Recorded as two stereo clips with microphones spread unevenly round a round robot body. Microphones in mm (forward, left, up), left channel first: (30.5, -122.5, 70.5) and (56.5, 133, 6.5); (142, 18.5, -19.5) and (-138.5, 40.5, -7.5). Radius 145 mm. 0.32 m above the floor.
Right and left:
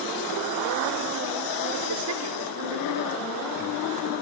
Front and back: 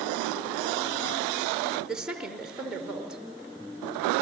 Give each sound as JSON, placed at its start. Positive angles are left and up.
{"t": 1.9, "sound": "a woman speaking", "azimuth_deg": 90, "distance_m": 5.0}